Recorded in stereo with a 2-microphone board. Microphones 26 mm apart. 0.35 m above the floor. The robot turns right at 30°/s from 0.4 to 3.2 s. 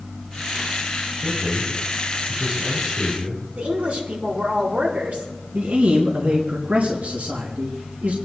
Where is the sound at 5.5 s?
75° right (ahead or behind), 3.5 m.